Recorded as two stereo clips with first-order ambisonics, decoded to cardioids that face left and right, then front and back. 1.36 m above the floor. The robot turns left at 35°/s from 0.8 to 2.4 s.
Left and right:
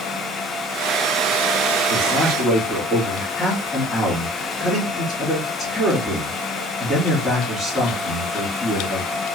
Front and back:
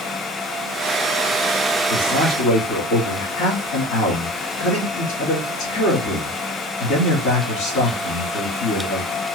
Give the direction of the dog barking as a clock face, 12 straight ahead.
I don't hear a dog barking.